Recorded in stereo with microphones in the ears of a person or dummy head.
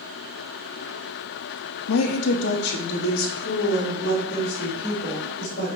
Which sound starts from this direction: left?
A woman speaking, at 1.9 s.